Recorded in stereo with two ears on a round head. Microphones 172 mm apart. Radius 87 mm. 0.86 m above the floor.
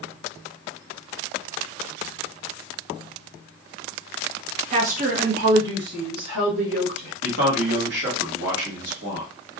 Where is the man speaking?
65° right (ahead or behind), 1.6 m.